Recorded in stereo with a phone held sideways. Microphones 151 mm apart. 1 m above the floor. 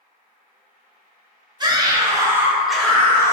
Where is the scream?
25° right (ahead or behind), 0.8 m; by 3.3 s 20° left (ahead or behind), 0.6 m.